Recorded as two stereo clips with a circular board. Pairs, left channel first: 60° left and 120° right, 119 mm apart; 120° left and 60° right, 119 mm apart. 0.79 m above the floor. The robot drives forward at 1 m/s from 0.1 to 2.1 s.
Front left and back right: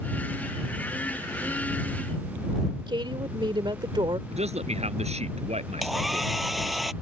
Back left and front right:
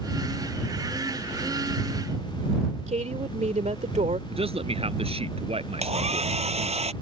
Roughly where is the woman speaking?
Right.